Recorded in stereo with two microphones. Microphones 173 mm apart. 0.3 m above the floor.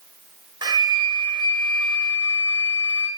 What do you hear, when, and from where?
0.6 s a flute: 25° right (ahead or behind), 0.8 m